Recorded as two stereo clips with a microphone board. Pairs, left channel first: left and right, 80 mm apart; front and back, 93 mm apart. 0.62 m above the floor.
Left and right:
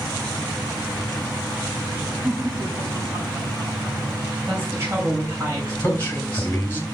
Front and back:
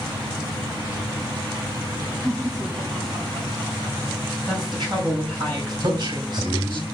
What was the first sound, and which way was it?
Laughter, 135° right.